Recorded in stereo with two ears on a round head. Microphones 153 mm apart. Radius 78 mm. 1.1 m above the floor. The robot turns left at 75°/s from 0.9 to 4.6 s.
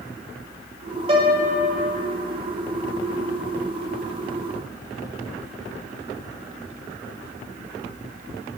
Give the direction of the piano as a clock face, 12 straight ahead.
4 o'clock.